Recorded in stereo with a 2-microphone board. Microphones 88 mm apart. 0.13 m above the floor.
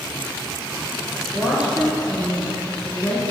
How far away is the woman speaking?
About 2.0 m.